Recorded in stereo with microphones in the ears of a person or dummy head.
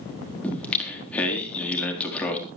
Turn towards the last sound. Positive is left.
turn(degrees=10)  # may be behind; listen again after turning